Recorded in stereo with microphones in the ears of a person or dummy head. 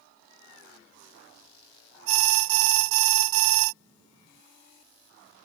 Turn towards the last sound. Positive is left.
turn(degrees=-80)